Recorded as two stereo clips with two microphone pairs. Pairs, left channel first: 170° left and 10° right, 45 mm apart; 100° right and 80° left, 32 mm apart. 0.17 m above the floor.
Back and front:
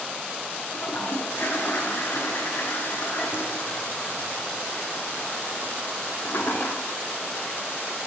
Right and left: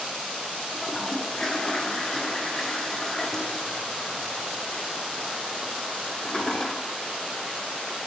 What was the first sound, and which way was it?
A toilet flushing, 175° right.